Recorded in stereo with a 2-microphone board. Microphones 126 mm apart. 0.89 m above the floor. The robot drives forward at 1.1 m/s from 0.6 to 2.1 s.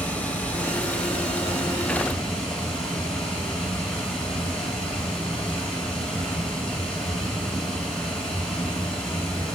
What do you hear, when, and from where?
0.0 s running water: 10° left (ahead or behind), 2 m; by 9.6 s 5° left (ahead or behind), 4 m